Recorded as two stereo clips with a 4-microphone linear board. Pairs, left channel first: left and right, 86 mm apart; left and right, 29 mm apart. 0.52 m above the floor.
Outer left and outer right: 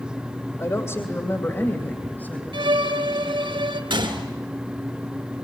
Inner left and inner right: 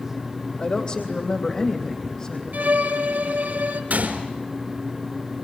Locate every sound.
0.6 s a woman speaking: 35° left (ahead or behind), 2 m; by 2.4 s 20° left (ahead or behind), 3.5 m
2.5 s a violin: 85° right, 3.5 m
3.9 s a gunshot: 75° right (ahead or behind), 3.5 m